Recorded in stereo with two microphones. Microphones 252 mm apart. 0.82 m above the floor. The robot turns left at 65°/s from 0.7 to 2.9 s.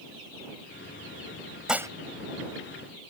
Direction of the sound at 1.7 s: Centre (ahead or behind).